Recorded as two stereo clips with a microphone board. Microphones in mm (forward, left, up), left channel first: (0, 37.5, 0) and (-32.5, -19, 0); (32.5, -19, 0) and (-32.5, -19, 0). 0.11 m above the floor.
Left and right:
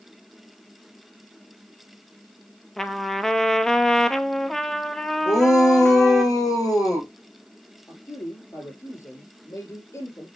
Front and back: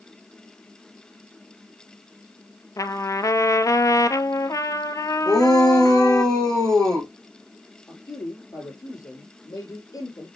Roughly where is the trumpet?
Ahead.